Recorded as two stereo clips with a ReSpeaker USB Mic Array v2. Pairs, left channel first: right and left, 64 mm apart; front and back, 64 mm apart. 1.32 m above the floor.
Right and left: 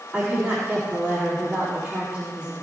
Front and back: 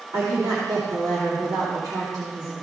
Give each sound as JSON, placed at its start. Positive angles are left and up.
{"t": 0.1, "sound": "a woman speaking", "azimuth_deg": 170, "distance_m": 3.0}